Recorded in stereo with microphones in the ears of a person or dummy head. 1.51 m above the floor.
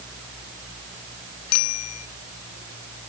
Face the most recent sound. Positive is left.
turn(degrees=85)